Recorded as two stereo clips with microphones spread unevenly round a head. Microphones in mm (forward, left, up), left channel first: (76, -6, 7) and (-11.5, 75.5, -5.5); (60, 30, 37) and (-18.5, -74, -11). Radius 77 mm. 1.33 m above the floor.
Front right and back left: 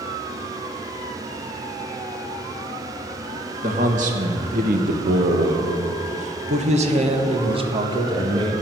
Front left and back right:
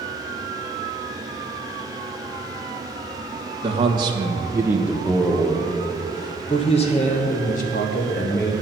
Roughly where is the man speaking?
Behind.